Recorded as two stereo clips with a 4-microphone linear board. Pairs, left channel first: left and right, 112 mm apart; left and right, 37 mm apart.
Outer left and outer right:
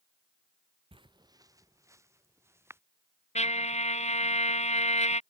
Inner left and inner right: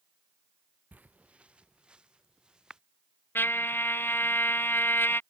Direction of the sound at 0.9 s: 50° right (ahead or behind).